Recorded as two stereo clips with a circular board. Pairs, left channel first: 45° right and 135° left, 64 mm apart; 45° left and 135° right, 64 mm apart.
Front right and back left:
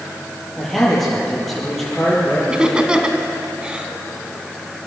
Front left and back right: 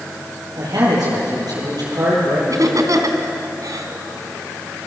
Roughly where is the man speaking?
Behind right.